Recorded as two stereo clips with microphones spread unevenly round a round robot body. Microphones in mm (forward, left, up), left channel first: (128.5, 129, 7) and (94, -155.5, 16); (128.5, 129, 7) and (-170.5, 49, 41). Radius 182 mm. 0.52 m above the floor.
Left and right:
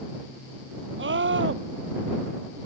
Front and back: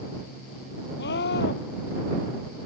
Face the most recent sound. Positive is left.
turn(degrees=-50)